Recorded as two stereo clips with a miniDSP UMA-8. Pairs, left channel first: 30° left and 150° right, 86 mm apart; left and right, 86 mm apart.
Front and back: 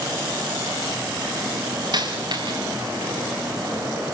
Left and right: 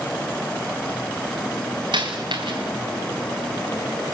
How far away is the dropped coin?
About 5 m.